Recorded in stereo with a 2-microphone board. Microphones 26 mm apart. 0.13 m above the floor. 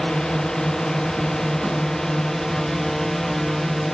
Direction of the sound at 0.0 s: 25° left (ahead or behind).